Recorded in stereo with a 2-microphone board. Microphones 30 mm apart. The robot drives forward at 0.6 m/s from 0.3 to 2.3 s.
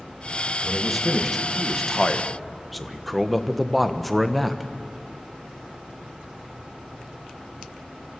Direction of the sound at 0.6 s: Centre (ahead or behind).